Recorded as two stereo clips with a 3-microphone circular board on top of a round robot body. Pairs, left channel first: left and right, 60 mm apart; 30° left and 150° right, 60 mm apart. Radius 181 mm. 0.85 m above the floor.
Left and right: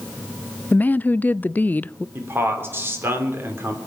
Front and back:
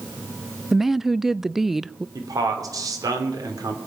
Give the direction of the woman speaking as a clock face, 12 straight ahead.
8 o'clock.